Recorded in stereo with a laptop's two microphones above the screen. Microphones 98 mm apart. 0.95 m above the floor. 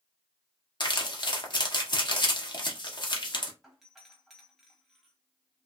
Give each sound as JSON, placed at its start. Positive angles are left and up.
{"t": 0.8, "sound": "crumpling", "side_deg": 50, "distance_m": 0.8}
{"t": 3.6, "sound": "a doorbell", "side_deg": 0, "distance_m": 1.3}